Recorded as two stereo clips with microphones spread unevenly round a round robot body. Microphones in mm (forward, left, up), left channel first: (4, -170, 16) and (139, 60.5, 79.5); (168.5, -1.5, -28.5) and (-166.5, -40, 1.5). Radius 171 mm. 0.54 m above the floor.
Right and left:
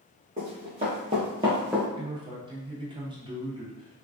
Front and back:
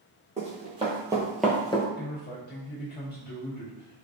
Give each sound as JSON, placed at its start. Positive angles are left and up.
{"t": 0.4, "sound": "running footsteps", "azimuth_deg": 120, "distance_m": 1.3}
{"t": 1.9, "sound": "a man speaking", "azimuth_deg": -20, "distance_m": 1.2}